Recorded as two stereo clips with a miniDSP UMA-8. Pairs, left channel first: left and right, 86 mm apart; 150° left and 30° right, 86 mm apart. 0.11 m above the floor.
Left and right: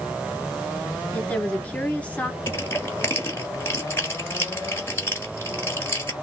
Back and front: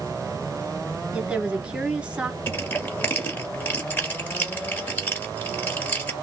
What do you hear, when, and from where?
1.1 s a woman speaking: 35° left, 1.2 m
2.5 s crushing: 120° left, 1.5 m